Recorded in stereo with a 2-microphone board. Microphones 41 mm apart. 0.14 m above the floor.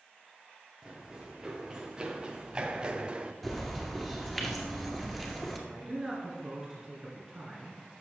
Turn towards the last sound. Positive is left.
turn(degrees=-15)  # may be behind; listen again after turning